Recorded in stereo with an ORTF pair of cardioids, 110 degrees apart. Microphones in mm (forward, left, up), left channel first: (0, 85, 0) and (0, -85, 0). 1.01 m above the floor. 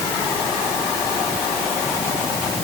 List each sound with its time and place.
Only background noise.